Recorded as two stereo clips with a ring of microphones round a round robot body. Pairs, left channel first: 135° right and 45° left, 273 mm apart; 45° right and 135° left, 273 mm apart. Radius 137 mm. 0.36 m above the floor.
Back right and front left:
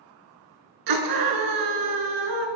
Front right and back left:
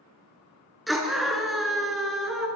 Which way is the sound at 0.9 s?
45° left.